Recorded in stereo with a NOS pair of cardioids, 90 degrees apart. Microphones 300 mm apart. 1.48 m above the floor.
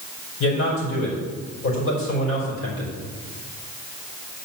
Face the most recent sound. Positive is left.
turn(degrees=45)